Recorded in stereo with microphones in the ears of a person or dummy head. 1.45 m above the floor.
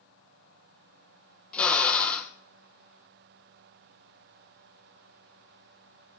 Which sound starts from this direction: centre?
A drill, at 1.5 s.